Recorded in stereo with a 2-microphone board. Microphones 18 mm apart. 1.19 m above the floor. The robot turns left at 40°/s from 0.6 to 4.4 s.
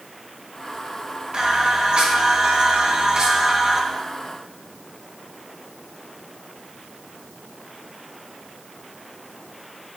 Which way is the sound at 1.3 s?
55° right.